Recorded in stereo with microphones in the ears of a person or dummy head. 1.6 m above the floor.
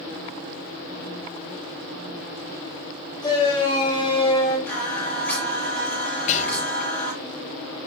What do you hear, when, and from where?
3.2 s a shout: 25° left (ahead or behind), 3.5 m; by 4.6 s 30° left (ahead or behind), 4.5 m
4.7 s singing: 10° left (ahead or behind), 6 m
6.3 s whispering: 40° left (ahead or behind), 2 m